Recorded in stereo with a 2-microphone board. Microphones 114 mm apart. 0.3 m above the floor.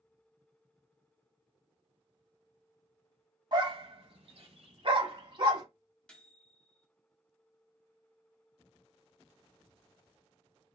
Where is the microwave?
10° left (ahead or behind), 1.4 m.